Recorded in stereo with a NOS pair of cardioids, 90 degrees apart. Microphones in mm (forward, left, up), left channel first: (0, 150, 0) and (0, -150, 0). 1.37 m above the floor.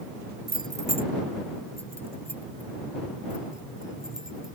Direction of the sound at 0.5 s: 30° right.